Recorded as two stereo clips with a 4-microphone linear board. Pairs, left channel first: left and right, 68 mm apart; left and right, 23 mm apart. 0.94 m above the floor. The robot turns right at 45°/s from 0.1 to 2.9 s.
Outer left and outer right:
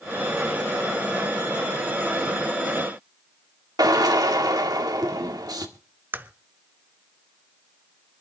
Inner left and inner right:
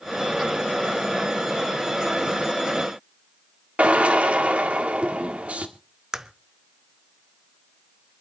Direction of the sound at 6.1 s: 30° right (ahead or behind).